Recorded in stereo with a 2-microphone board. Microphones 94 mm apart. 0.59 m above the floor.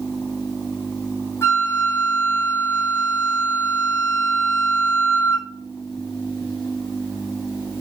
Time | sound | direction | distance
1.4 | a flute | 30° left (ahead or behind) | 2.5 m